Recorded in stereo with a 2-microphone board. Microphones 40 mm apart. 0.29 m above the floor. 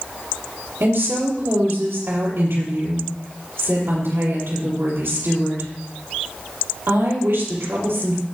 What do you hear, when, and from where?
0.8 s a woman speaking: 70° right (ahead or behind), 6 m